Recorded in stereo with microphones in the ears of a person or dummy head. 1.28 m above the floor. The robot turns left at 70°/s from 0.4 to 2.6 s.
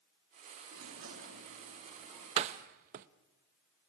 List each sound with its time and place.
0.7 s a sliding door: 80° right, 3 m; by 2.3 s 175° left, 3 m
2.4 s a door slam: 30° right (ahead or behind), 0.8 m; by 3.1 s 45° right (ahead or behind), 0.8 m